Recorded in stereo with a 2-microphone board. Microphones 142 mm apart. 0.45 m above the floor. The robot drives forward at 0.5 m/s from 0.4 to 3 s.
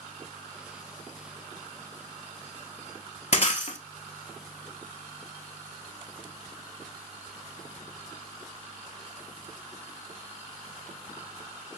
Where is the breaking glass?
50° left (ahead or behind), 0.7 m.